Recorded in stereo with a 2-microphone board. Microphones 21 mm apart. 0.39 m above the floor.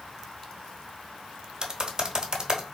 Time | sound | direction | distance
1.6 | typing on a keyboard | 35° right (ahead or behind) | 0.8 m